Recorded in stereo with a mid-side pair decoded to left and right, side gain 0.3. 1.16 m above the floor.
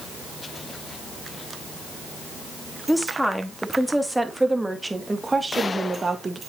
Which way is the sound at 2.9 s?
5° left.